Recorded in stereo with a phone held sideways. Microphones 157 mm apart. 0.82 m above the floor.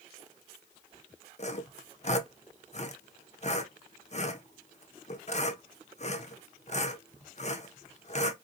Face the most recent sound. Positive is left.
turn(degrees=45)  # may be behind; listen again after turning